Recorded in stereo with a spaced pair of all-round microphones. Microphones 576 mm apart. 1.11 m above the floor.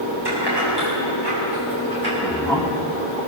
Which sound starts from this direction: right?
Keys jangling, at 0.2 s.